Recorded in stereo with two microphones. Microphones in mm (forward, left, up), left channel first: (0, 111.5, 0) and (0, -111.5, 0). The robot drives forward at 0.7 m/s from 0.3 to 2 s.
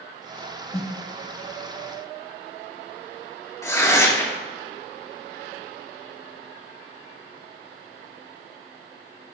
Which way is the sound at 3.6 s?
15° left (ahead or behind).